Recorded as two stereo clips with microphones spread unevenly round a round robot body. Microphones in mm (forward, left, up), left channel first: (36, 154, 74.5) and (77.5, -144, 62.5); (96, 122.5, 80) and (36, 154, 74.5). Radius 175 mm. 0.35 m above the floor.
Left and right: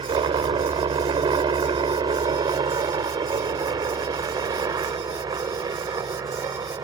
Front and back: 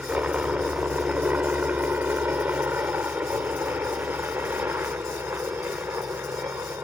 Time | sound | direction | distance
0.0 | a helicopter | 145° right | ?